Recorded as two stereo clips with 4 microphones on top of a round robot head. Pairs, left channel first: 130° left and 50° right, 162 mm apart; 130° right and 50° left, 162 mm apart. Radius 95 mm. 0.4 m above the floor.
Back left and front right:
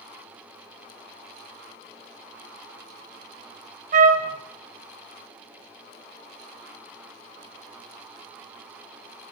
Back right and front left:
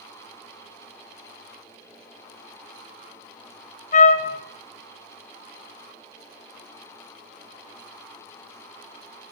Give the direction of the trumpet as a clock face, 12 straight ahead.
3 o'clock.